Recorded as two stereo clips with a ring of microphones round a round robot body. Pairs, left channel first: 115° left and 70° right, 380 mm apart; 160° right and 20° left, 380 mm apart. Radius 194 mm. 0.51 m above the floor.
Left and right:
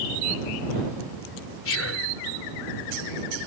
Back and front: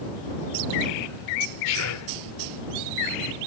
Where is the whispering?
165° left.